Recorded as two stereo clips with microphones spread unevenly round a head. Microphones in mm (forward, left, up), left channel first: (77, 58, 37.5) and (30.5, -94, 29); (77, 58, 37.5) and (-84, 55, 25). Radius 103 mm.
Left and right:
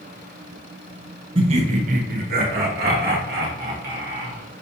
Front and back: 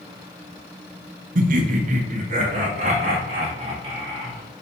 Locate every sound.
1.4 s laughter: 160° right, 0.6 m; by 4.6 s 120° right, 2.5 m